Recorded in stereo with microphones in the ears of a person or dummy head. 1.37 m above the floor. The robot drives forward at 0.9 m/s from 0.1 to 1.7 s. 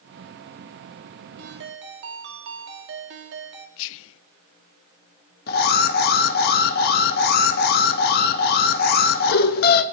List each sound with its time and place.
1.4 s a ringtone: 55° right (ahead or behind), 1.7 m; by 3.7 s 60° right (ahead or behind), 1.6 m
3.8 s whispering: 70° left (ahead or behind), 0.5 m
5.5 s an alarm: 50° left (ahead or behind), 1.1 m